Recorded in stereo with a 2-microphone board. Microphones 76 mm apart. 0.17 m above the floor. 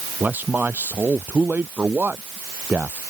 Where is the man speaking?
25° right (ahead or behind).